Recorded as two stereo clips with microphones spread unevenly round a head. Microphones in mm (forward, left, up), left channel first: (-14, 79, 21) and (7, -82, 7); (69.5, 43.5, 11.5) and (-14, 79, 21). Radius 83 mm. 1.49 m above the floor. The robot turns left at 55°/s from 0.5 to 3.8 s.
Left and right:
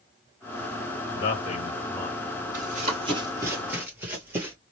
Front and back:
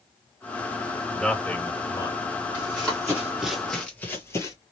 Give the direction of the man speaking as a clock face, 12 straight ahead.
10 o'clock.